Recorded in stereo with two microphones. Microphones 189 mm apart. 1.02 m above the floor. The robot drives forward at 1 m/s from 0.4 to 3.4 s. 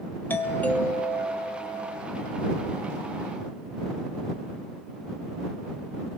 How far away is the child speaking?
No child speaking in this recording.